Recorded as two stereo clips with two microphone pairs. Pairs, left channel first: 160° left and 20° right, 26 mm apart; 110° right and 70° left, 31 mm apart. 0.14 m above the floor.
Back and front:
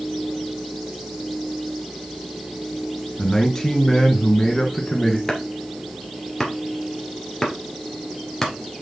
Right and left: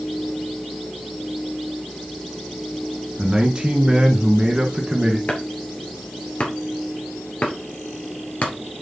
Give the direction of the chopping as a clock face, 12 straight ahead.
4 o'clock.